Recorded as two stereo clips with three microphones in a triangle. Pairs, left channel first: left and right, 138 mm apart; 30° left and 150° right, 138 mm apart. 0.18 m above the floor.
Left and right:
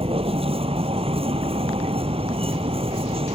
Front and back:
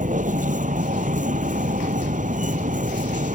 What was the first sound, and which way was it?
A vehicle, 135° right.